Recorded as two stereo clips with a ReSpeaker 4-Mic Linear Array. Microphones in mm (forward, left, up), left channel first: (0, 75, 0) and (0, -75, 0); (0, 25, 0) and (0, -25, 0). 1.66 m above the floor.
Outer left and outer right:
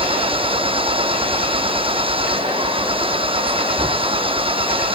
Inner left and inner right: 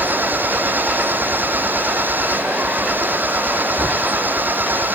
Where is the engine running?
35° right (ahead or behind).